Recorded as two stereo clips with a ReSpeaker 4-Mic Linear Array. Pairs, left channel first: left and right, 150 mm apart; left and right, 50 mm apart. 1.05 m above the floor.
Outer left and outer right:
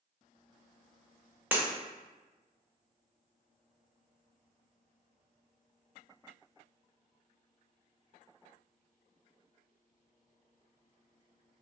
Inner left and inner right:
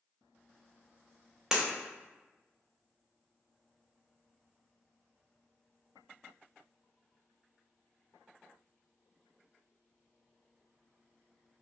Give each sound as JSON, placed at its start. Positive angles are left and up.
{"t": 1.5, "sound": "breaking glass", "side_deg": -10, "distance_m": 0.6}